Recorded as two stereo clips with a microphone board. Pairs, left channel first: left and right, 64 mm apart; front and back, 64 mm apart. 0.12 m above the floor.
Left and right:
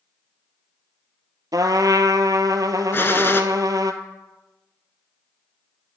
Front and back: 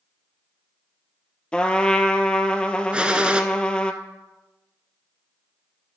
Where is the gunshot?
115° left, 0.5 m.